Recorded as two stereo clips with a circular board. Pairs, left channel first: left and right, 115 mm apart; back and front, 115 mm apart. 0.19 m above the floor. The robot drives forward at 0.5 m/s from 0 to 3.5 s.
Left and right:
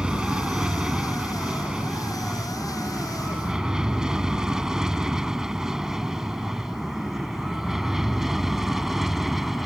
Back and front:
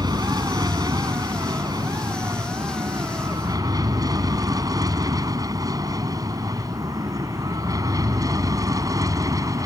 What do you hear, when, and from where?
0.0 s an aircraft: 15° right; by 9.7 s 5° right